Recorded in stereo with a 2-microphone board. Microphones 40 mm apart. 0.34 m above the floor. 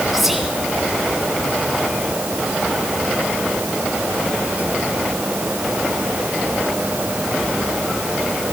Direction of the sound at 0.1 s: 5° right (ahead or behind).